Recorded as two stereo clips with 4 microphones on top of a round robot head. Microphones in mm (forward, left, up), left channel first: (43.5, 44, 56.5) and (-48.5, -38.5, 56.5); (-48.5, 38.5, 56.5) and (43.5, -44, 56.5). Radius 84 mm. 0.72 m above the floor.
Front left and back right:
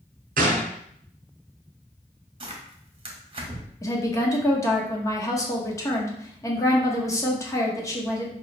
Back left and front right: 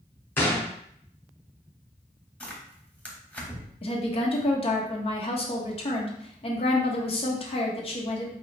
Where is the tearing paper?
150° right, 1.2 m.